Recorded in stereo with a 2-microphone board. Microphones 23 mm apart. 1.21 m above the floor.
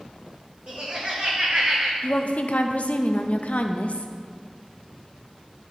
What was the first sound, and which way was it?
Laughter, 60° right (ahead or behind).